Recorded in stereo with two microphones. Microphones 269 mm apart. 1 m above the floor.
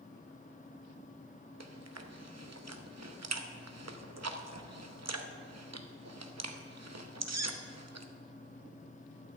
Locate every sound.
1.6 s chewing: 75° right (ahead or behind), 0.8 m